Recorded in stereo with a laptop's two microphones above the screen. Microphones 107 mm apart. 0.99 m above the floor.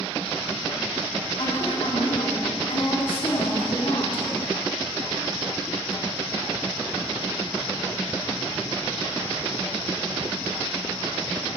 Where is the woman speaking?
60° left (ahead or behind), 3 m.